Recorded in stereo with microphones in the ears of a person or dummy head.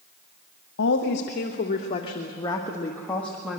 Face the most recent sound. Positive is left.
turn(degrees=0)  # may be behind; listen again after turning